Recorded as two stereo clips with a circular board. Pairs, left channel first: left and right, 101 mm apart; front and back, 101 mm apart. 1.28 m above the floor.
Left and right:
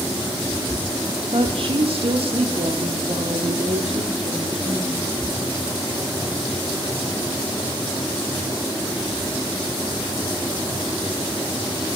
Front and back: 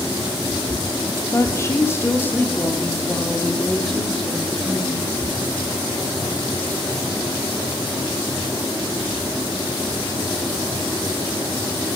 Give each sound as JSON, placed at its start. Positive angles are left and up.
{"t": 1.3, "sound": "a woman speaking", "azimuth_deg": -60, "distance_m": 2.5}